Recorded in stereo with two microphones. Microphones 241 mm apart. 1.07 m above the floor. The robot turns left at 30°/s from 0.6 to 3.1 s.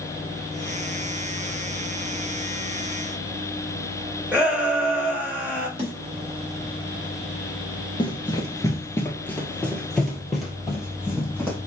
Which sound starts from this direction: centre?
A shout, at 4.3 s.